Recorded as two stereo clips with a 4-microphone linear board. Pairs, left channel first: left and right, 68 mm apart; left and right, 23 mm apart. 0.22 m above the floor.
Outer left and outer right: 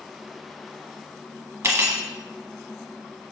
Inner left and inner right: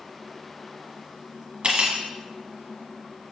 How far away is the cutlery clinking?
About 1.1 m.